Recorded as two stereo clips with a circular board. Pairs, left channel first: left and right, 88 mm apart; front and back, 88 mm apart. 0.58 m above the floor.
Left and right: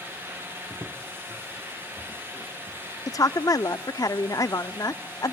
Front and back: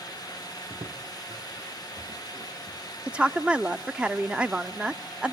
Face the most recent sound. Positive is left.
turn(degrees=110)